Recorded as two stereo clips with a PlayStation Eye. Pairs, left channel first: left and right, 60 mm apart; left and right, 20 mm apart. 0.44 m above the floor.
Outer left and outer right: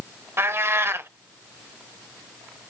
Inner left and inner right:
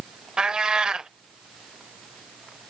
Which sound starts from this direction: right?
A cat meowing, at 0.4 s.